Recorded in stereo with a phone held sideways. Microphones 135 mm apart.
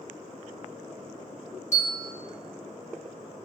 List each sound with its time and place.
1.7 s a bell: 55° left (ahead or behind), 2.5 m